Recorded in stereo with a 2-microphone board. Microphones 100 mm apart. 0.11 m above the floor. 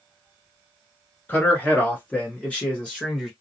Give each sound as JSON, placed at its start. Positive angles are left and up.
{"t": 1.3, "sound": "a man speaking", "side_deg": 20, "distance_m": 1.5}